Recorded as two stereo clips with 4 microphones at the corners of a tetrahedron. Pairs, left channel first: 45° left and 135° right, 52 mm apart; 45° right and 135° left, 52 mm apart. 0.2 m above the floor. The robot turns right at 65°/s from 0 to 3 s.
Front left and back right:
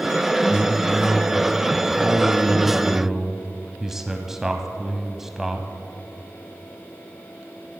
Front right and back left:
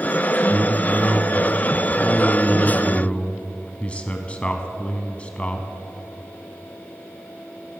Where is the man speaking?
135° left, 1.1 m; by 5.7 s 60° right, 1.1 m.